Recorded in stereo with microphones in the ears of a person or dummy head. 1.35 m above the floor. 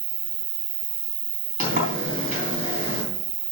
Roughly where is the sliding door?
Right.